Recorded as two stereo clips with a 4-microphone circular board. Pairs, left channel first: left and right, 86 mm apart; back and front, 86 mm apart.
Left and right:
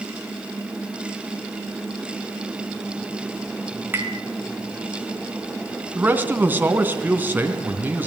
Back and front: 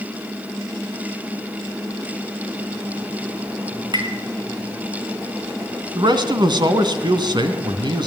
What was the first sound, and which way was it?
Tapping, 25° right.